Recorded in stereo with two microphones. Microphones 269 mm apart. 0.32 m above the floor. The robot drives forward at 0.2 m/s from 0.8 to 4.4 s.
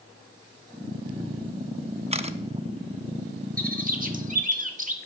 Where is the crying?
No crying in this recording.